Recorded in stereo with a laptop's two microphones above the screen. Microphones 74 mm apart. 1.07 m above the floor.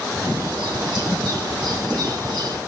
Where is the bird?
75° right (ahead or behind), 1.7 m.